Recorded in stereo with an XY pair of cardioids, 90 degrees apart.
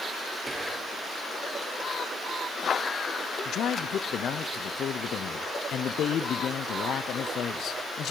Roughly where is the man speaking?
Left.